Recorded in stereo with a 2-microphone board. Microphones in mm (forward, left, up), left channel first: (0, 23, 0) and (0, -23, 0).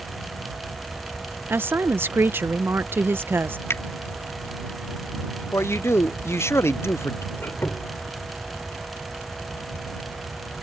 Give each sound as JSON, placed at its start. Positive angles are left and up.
{"t": 1.5, "sound": "a woman speaking", "side_deg": -55}
{"t": 3.7, "sound": "a finger snap", "side_deg": 70}
{"t": 5.5, "sound": "a man speaking", "side_deg": 75}
{"t": 7.3, "sound": "a squeak", "side_deg": 60}